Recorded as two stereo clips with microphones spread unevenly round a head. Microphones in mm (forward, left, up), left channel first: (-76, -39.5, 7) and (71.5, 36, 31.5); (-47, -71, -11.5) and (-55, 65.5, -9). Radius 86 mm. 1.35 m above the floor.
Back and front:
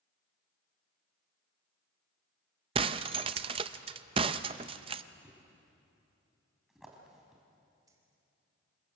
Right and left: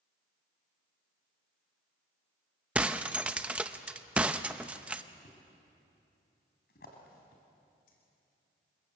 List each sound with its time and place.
2.8 s breaking glass: 20° left, 0.6 m
5.2 s a thud: 60° right, 4 m
7.9 s keys jangling: 40° right, 4 m